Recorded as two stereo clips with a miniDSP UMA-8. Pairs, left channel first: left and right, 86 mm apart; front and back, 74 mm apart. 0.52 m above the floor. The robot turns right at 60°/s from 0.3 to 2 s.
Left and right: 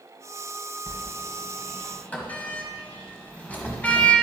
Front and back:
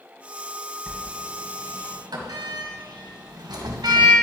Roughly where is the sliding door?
Left.